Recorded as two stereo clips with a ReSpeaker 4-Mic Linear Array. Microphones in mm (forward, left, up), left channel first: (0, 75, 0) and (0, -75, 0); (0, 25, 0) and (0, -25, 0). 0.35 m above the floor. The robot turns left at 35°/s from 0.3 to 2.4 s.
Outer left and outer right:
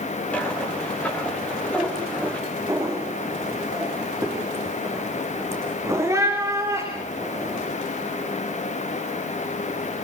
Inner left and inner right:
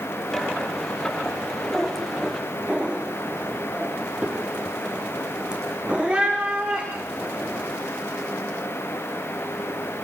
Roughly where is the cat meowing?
Centre.